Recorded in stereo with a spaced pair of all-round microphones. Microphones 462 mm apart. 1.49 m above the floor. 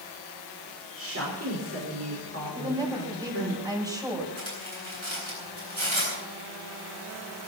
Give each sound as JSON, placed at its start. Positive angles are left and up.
{"t": 1.0, "sound": "a woman speaking", "side_deg": -30, "distance_m": 5.5}
{"t": 2.5, "sound": "a woman speaking", "side_deg": -10, "distance_m": 7.0}
{"t": 4.4, "sound": "cutlery clinking", "side_deg": -80, "distance_m": 9.5}